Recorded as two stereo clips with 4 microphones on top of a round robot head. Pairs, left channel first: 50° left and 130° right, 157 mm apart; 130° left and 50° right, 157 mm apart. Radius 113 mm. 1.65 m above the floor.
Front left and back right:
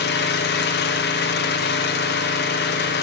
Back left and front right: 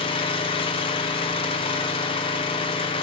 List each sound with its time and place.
0.0 s an engine running: 70° left, 1.2 m